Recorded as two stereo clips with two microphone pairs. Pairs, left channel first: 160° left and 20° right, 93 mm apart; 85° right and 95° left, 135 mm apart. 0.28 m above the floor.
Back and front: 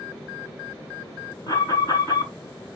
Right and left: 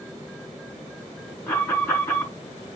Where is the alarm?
155° right, 5 m.